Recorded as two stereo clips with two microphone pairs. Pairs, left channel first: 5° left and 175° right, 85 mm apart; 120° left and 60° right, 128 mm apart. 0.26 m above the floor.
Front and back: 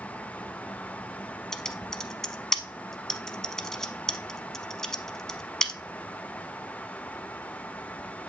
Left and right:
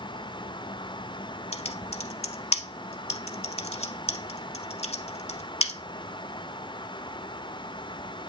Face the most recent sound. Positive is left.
turn(degrees=90)